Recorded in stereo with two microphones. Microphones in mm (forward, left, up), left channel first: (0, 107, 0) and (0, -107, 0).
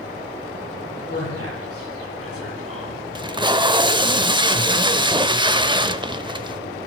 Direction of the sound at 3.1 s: 20° right (ahead or behind).